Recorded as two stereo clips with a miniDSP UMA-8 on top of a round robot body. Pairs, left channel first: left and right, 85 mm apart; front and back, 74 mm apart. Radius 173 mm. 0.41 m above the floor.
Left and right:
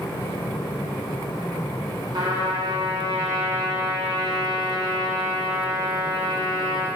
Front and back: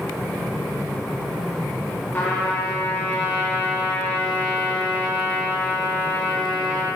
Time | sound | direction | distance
2.1 | a trumpet | 65° right | 1.0 m